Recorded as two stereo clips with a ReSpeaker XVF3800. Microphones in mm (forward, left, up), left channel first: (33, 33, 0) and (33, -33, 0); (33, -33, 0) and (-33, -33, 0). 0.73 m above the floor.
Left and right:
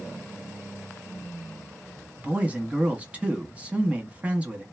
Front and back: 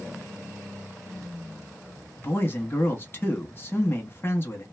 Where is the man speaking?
35° right, 1.4 m.